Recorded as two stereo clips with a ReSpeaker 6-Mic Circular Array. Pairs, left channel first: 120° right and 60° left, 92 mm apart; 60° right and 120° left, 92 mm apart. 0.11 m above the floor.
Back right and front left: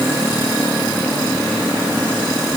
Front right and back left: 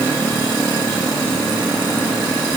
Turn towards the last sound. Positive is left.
No sound to turn to.